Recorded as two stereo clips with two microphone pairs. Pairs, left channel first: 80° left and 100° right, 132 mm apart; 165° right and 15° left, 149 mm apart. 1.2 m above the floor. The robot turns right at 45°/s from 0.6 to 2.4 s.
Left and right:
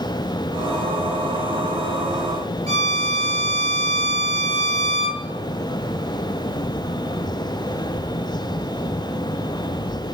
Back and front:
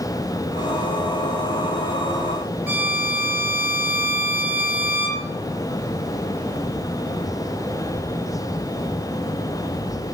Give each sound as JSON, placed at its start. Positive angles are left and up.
{"t": 2.7, "sound": "a violin", "azimuth_deg": -60, "distance_m": 2.5}